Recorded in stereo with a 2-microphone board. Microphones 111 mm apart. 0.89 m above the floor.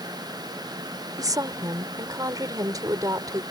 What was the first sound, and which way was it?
A woman speaking, 35° right (ahead or behind).